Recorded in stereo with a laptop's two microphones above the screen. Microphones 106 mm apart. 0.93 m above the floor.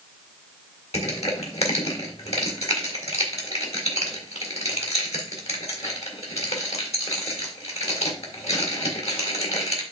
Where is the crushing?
80° left, 3 m.